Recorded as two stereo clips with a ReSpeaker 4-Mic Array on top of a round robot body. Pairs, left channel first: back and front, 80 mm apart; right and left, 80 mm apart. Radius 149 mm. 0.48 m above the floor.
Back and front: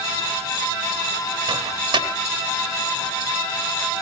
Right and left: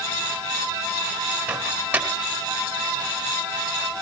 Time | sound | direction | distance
1.5 | a microwave | 15° left | 3.5 m